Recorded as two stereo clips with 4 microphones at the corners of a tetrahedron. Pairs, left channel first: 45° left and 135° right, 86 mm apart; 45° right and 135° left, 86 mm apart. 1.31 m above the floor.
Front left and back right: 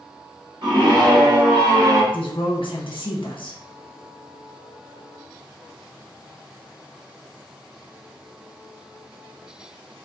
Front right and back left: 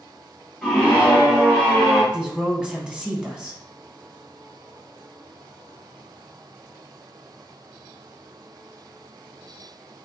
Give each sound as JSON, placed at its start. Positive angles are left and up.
{"t": 0.6, "sound": "a scream", "azimuth_deg": -130, "distance_m": 1.9}
{"t": 2.1, "sound": "a woman speaking", "azimuth_deg": 55, "distance_m": 1.0}